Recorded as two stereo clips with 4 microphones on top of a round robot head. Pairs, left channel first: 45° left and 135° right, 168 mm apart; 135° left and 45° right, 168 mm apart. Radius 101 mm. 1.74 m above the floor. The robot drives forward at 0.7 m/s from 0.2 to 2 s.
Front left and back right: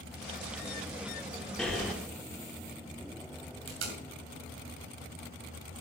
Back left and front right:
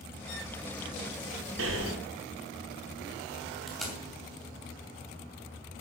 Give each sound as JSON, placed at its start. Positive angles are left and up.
{"t": 1.6, "sound": "breathing", "azimuth_deg": -40, "distance_m": 2.0}
{"t": 3.7, "sound": "tape being pulled", "azimuth_deg": -135, "distance_m": 2.5}